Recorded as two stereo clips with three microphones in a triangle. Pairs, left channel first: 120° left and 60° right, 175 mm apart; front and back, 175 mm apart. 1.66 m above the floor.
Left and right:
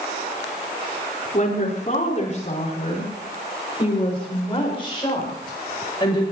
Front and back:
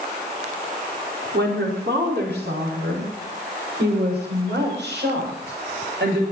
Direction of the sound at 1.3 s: 165° left.